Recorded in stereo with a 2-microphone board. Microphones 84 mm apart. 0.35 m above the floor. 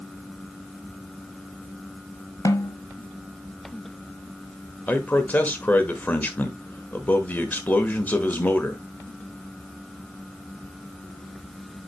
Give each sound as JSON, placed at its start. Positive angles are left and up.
{"t": 2.5, "sound": "a snare drum", "side_deg": 45, "distance_m": 0.8}
{"t": 4.9, "sound": "a man speaking", "side_deg": 20, "distance_m": 1.1}